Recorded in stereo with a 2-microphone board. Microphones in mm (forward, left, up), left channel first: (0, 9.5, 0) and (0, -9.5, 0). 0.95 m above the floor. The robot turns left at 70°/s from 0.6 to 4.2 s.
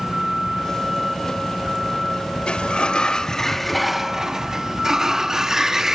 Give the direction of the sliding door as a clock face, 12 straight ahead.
9 o'clock.